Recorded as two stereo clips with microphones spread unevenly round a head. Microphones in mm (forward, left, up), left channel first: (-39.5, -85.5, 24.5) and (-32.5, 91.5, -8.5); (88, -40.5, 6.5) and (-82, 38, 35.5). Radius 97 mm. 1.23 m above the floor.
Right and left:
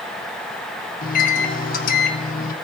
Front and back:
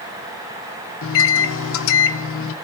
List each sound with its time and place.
1.0 s a microwave: 40° right, 0.6 m